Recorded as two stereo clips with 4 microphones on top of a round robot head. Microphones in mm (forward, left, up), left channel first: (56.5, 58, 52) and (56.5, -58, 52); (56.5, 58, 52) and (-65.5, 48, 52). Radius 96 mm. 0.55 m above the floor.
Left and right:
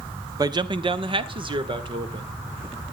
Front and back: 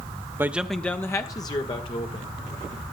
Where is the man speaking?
120° right, 0.9 m; by 2.4 s 45° right, 2.5 m.